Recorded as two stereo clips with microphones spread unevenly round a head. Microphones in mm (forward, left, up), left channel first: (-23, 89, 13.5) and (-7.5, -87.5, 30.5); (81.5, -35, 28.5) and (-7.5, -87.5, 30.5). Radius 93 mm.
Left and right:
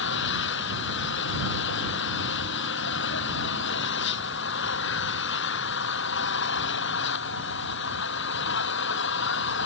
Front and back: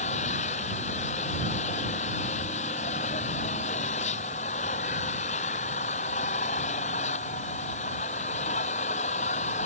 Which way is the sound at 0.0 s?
65° left.